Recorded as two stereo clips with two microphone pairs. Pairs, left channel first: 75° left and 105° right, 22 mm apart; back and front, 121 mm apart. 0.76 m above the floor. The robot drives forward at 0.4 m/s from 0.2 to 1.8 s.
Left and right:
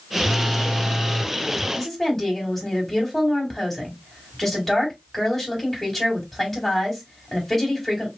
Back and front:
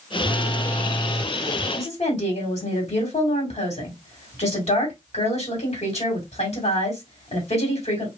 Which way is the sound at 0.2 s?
115° left.